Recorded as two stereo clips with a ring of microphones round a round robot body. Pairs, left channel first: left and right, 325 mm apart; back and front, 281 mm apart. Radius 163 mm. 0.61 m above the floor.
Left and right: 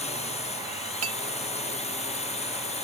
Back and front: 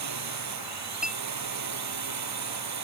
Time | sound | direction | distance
0.0 | a drone | 20° left | ?
1.0 | a clink | 90° right | ?